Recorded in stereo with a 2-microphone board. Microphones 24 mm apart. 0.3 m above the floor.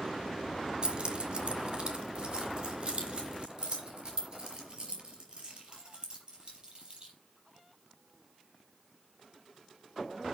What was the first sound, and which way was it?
Keys jangling, 40° right (ahead or behind).